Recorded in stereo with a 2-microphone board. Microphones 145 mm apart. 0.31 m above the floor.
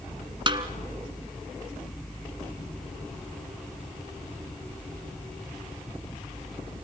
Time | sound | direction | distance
0.5 | a snare drum | 35° right (ahead or behind) | 1.5 m